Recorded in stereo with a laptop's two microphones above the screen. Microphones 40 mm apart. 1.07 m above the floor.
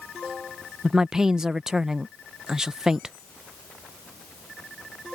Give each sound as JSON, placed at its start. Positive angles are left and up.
{"t": 0.8, "sound": "a woman speaking", "side_deg": -20}